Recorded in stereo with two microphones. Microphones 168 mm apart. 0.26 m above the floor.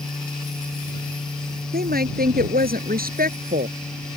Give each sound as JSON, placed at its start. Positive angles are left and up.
{"t": 1.7, "sound": "a woman speaking", "side_deg": -75}